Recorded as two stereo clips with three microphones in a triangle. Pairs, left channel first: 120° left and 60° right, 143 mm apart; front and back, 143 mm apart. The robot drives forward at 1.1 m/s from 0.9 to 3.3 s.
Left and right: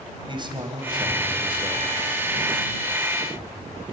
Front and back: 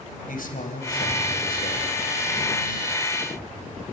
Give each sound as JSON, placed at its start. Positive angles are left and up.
{"t": 0.3, "sound": "a man speaking", "azimuth_deg": -5, "distance_m": 3.0}